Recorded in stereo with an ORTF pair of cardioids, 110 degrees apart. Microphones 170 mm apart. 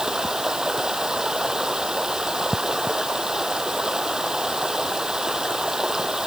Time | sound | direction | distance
0.0 | running water | 5° right | ?